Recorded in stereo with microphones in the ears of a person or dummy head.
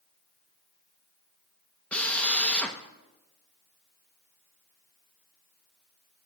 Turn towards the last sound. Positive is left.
turn(degrees=10)  # may be behind; listen again after turning